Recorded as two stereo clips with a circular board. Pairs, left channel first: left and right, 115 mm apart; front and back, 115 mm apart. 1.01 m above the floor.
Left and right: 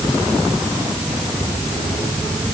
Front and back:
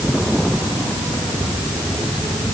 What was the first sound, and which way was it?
Only background noise.